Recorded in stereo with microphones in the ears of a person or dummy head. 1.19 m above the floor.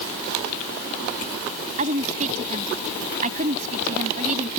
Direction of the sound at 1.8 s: 35° right (ahead or behind).